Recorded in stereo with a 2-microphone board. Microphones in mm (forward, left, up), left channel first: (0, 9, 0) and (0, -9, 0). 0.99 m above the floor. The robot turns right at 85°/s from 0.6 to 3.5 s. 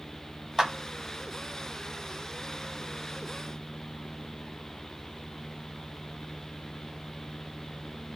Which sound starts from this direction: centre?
A clap, at 0.6 s.